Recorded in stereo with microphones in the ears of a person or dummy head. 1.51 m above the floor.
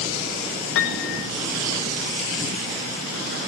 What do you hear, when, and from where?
0.8 s a piano: 70° left (ahead or behind), 1.7 m